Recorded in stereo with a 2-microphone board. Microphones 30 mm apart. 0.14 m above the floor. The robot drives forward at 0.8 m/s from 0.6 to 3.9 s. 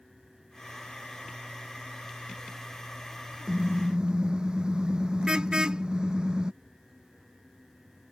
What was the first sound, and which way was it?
A car horn, 30° right (ahead or behind).